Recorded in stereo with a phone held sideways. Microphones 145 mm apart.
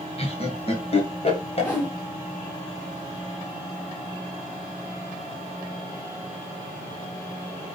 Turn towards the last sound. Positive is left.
turn(degrees=15)  # may be behind; listen again after turning